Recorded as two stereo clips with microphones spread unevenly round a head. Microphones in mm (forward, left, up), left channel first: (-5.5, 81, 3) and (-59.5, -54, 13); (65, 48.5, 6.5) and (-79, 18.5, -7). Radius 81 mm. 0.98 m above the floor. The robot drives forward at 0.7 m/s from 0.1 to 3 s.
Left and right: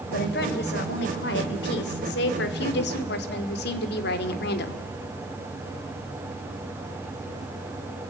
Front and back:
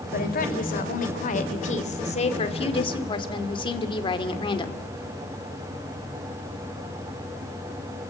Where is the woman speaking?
35° left, 3.5 m; by 4.8 s 70° left, 2.5 m.